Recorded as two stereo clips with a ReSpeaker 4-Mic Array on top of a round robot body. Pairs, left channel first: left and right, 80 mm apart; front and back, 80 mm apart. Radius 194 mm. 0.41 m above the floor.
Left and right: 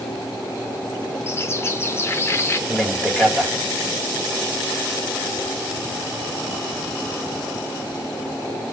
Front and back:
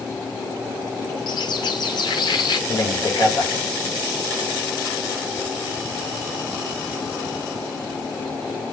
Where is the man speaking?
15° left, 2.5 m.